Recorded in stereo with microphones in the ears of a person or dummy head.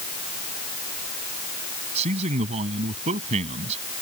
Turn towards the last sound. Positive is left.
turn(degrees=-40)  # may be behind; listen again after turning